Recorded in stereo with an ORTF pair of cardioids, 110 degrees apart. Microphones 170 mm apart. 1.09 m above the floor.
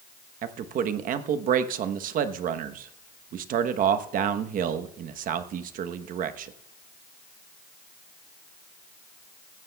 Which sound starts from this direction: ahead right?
A man speaking, at 0.4 s.